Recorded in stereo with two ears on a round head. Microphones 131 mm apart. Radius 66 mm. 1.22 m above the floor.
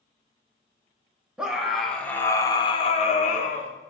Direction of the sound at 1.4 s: 5° right (ahead or behind).